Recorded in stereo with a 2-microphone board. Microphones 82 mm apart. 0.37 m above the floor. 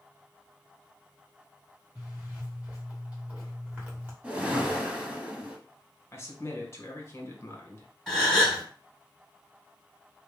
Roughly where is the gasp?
Centre.